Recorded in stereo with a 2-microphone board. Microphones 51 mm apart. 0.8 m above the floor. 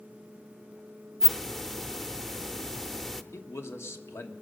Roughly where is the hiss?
Centre.